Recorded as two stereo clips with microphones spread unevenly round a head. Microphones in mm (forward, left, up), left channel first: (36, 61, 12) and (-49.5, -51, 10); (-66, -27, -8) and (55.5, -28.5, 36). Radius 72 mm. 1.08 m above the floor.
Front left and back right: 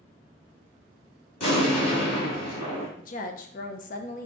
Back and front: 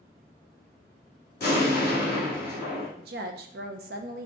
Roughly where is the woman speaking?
Ahead left.